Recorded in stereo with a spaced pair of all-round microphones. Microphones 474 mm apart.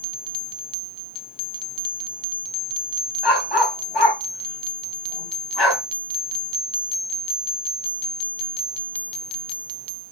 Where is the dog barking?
60° left (ahead or behind), 3 m.